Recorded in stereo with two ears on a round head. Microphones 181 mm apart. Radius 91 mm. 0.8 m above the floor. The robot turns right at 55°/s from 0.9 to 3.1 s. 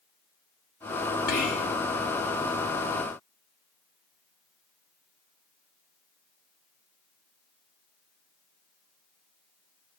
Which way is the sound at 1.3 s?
50° left (ahead or behind).